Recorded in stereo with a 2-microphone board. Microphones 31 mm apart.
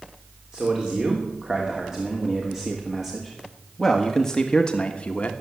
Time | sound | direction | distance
0.5 | a man speaking | 25° right (ahead or behind) | 3 m